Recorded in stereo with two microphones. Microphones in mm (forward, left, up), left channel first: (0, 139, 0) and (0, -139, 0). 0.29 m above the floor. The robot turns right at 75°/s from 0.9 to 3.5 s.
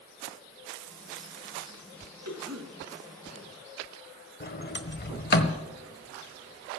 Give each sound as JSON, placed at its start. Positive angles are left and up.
{"t": 2.2, "sound": "a cough", "side_deg": -60, "distance_m": 3.0}
{"t": 4.4, "sound": "a sliding door", "side_deg": 35, "distance_m": 1.2}